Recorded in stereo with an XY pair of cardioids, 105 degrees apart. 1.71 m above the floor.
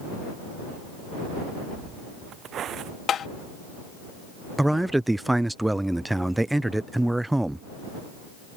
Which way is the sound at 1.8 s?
55° right.